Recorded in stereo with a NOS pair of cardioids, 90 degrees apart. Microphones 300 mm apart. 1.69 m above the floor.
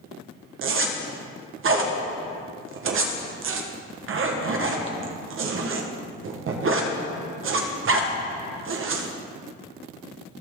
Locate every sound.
0.6 s a zipper: 45° right, 1.3 m